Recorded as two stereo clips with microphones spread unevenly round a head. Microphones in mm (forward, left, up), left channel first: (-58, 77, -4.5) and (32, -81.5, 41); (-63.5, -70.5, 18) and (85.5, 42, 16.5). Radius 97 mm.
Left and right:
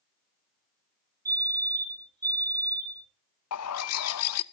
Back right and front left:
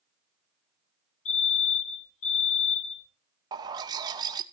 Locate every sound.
1.2 s a fire alarm: 135° right, 4.5 m
3.5 s a bird: 105° left, 0.5 m